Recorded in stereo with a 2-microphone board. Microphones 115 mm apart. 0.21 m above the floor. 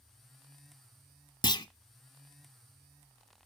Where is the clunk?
45° left (ahead or behind), 0.5 m.